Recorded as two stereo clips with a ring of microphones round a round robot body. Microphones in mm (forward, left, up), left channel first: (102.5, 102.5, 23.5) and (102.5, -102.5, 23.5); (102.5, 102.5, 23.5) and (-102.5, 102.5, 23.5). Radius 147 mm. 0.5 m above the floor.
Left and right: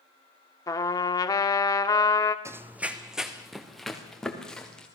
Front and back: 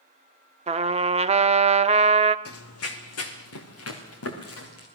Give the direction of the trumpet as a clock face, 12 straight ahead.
7 o'clock.